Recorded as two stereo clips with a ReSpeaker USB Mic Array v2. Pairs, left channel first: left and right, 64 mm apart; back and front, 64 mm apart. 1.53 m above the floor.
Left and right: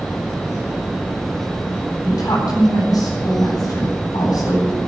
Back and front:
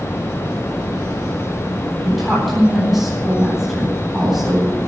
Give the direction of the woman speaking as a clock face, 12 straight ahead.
9 o'clock.